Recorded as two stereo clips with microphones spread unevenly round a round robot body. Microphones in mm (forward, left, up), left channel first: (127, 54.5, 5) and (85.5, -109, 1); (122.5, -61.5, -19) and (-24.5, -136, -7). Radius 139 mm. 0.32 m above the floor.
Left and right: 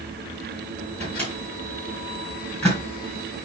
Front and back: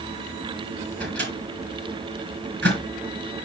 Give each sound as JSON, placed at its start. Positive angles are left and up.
{"t": 1.0, "sound": "a microwave", "azimuth_deg": 160, "distance_m": 3.5}